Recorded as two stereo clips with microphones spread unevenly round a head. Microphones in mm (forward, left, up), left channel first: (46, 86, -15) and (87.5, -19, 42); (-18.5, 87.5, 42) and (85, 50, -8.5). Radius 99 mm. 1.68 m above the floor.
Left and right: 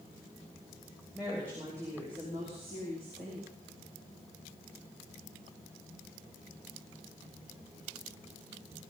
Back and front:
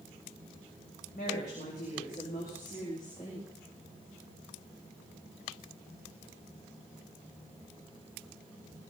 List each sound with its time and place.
1.1 s a woman speaking: 150° right, 3 m; by 3.5 s 125° right, 4 m